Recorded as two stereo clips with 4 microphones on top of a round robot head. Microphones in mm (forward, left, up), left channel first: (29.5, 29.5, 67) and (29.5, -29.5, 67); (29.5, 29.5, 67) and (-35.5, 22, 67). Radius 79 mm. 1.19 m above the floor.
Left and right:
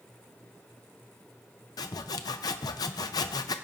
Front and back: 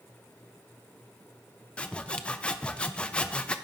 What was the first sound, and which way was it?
Sawing, 80° left.